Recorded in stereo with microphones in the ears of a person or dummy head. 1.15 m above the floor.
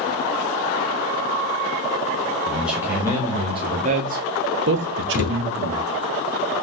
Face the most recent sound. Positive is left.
turn(degrees=40)  # may be behind; listen again after turning